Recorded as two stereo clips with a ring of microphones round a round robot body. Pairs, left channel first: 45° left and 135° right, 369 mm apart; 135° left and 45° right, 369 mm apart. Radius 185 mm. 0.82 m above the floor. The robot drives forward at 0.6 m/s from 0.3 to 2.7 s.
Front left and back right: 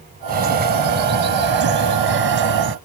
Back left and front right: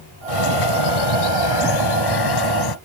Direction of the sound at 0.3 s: 160° left.